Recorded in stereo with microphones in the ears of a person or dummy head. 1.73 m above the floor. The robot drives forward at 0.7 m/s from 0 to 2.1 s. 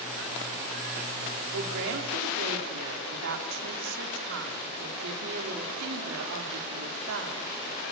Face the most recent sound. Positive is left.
turn(degrees=-65)  # may be behind; listen again after turning